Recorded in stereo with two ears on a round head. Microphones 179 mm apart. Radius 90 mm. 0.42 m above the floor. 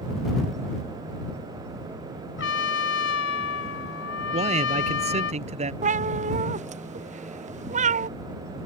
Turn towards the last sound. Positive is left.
turn(degrees=-40)  # may be behind; listen again after turning